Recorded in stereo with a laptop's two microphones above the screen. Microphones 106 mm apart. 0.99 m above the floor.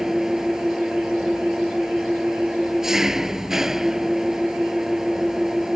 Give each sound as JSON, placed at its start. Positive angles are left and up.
{"t": 0.0, "sound": "an engine running", "side_deg": -5}